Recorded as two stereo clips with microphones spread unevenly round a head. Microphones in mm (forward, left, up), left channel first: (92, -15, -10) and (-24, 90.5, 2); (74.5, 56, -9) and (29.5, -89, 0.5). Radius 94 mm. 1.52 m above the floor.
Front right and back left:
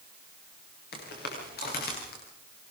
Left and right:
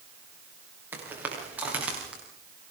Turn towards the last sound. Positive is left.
turn(degrees=-25)